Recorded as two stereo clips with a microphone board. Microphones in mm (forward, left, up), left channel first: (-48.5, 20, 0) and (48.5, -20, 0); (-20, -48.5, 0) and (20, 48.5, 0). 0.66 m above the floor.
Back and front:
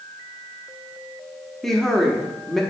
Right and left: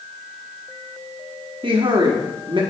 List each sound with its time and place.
1.6 s a woman speaking: 70° left, 0.9 m